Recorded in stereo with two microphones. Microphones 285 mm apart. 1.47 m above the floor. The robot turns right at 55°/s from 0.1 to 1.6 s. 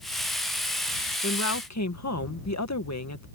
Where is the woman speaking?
50° left (ahead or behind); by 3.3 s 70° left (ahead or behind).